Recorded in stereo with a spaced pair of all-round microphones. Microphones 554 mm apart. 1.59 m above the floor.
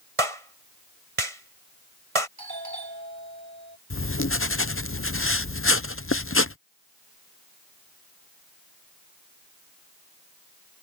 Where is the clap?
70° right (ahead or behind).